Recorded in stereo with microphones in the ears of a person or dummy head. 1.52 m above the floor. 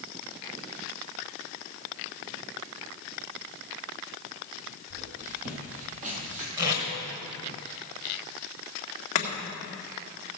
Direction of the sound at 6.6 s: 20° right (ahead or behind).